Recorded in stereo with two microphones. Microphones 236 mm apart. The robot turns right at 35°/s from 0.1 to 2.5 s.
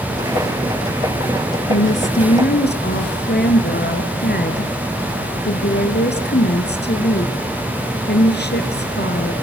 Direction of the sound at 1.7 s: 60° left (ahead or behind).